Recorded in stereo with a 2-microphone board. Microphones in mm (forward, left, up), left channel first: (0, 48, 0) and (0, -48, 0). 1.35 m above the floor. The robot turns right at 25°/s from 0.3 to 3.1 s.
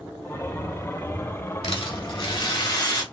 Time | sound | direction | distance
1.6 | a rattle | 105° left | 1.7 m